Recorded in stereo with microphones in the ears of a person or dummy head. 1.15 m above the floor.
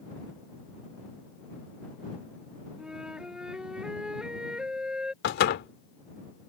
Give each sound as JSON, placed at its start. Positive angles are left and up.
{"t": 2.8, "sound": "a flute", "side_deg": -5}
{"t": 5.2, "sound": "a door slam", "side_deg": 65}